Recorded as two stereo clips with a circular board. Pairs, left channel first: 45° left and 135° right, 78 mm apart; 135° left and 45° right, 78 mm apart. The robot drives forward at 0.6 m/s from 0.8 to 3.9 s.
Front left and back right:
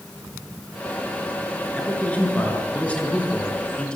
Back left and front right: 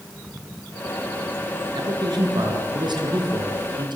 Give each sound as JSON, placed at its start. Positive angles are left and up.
{"t": 1.8, "sound": "a man speaking", "azimuth_deg": -25, "distance_m": 6.0}